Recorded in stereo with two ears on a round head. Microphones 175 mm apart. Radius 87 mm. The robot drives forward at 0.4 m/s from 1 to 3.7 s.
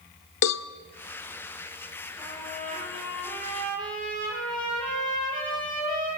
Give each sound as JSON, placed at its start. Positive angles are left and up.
{"t": 0.4, "sound": "a cowbell", "side_deg": 65, "distance_m": 0.9}
{"t": 2.2, "sound": "a trumpet", "side_deg": 5, "distance_m": 9.5}